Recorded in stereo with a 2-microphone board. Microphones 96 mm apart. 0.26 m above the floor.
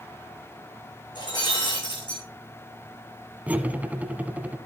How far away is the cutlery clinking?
About 1.3 m.